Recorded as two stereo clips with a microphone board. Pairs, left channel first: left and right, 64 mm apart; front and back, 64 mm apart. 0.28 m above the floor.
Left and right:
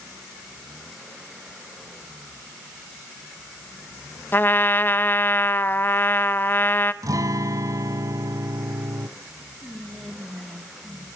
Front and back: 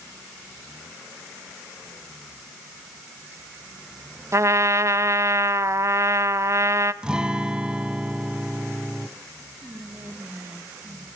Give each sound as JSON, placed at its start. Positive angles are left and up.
{"t": 4.3, "sound": "a trumpet", "azimuth_deg": 145, "distance_m": 0.6}
{"t": 7.0, "sound": "a guitar", "azimuth_deg": -105, "distance_m": 0.9}
{"t": 9.6, "sound": "whispering", "azimuth_deg": -175, "distance_m": 1.6}